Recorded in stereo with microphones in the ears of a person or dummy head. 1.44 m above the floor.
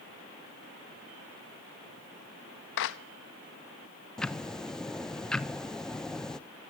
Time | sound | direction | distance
2.8 | a clap | 65° left (ahead or behind) | 1.1 m
4.2 | ticking | 5° left (ahead or behind) | 0.7 m